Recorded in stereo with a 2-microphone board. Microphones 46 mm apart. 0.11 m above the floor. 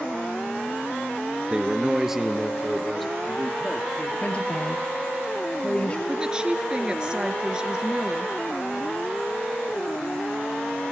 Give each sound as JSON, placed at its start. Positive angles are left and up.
{"t": 1.5, "sound": "a man speaking", "side_deg": -25, "distance_m": 1.2}
{"t": 4.2, "sound": "a woman speaking", "side_deg": 25, "distance_m": 2.5}
{"t": 6.1, "sound": "a woman speaking", "side_deg": -20, "distance_m": 1.8}